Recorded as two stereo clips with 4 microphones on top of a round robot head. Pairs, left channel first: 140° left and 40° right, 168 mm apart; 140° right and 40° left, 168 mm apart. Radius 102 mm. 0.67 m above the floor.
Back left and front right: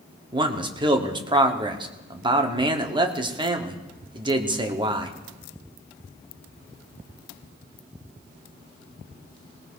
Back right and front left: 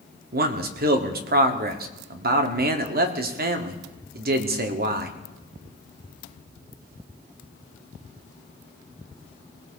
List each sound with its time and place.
0.3 s a man speaking: 20° left, 1.4 m